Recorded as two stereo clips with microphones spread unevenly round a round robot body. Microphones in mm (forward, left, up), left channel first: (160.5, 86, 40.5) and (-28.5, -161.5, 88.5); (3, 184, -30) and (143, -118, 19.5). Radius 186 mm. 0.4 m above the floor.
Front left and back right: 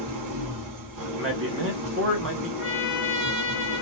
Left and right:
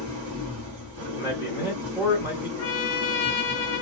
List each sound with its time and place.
0.0 s an engine running: 110° right, 0.8 m
1.1 s a man speaking: 155° right, 1.1 m
2.6 s a trumpet: 150° left, 1.1 m